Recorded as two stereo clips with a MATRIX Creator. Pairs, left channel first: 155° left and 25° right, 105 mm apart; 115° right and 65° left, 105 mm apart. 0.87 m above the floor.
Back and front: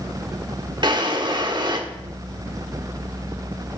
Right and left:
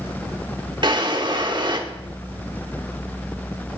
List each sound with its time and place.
0.8 s a drawer: 25° left, 1.1 m